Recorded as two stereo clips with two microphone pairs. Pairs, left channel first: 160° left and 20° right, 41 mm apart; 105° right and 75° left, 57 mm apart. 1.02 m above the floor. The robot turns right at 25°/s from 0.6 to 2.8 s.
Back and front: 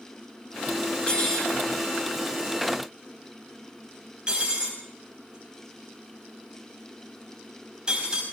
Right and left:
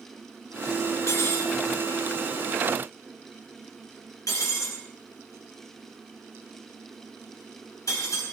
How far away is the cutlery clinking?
About 5 m.